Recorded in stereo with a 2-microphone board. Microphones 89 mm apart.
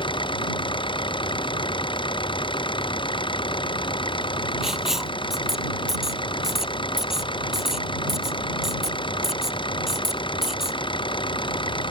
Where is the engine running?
70° left (ahead or behind).